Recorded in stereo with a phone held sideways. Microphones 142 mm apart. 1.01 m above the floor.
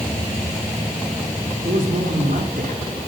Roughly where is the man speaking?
Right.